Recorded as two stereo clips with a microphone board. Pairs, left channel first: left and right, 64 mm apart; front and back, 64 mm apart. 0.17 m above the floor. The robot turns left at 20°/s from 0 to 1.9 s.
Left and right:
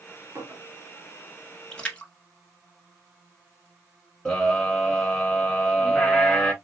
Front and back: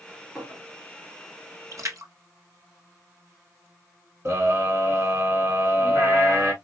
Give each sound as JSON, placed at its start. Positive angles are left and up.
{"t": 0.3, "sound": "a clink", "azimuth_deg": -110, "distance_m": 2.0}
{"t": 1.7, "sound": "a splash", "azimuth_deg": 165, "distance_m": 1.0}
{"t": 4.2, "sound": "a scream", "azimuth_deg": 165, "distance_m": 1.6}